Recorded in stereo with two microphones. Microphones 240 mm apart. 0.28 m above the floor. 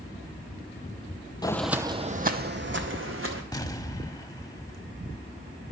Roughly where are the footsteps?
Centre.